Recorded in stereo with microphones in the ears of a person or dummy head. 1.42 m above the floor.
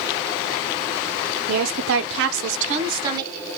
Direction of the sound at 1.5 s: 55° right (ahead or behind).